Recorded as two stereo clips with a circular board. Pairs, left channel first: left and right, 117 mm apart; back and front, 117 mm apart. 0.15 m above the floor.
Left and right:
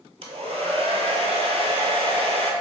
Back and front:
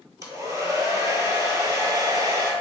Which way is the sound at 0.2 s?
60° right.